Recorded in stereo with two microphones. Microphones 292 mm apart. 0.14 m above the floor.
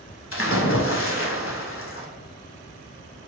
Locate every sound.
0.3 s a splash: 45° left (ahead or behind), 0.6 m